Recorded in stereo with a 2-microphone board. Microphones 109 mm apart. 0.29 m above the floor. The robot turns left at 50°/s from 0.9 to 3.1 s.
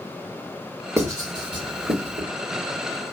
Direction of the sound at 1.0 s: 25° right (ahead or behind).